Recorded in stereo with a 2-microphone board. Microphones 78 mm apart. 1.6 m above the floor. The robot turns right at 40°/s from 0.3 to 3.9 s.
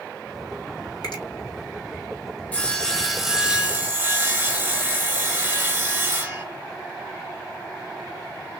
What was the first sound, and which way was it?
A finger snap, 60° left (ahead or behind).